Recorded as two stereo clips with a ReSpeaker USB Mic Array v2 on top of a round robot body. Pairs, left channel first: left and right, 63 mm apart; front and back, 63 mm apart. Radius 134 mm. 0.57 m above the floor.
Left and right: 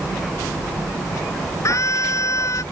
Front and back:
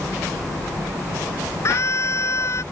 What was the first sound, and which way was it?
A scream, 45° left.